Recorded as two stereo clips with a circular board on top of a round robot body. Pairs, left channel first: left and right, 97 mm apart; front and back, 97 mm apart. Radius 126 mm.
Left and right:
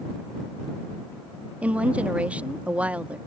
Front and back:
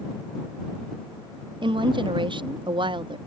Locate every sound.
1.6 s a woman speaking: 165° right